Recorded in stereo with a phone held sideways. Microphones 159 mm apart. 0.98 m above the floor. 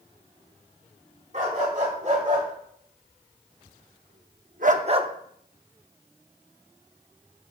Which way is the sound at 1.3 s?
55° right (ahead or behind).